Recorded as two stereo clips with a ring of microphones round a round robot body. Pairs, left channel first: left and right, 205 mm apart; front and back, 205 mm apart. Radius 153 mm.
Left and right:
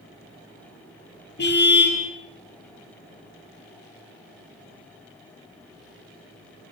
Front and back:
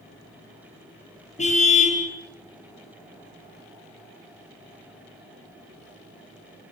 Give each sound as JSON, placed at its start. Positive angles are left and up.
{"t": 1.4, "sound": "a car horn", "azimuth_deg": 55, "distance_m": 6.0}